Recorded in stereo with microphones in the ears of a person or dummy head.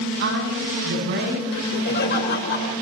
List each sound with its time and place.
0.2 s a woman speaking: 65° right (ahead or behind), 9.5 m; by 1.4 s 60° right (ahead or behind), 9.5 m
1.5 s laughter: 55° left (ahead or behind), 5 m